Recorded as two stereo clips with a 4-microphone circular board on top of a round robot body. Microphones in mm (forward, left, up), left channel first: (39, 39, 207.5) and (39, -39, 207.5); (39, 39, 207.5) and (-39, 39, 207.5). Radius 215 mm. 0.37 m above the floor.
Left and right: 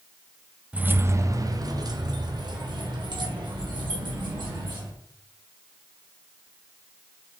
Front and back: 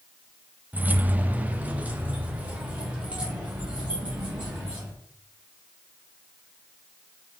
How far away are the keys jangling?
About 0.7 m.